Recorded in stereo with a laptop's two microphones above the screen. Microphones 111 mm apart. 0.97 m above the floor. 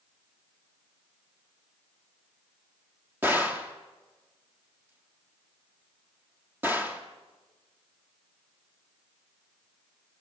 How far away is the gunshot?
About 2.5 m.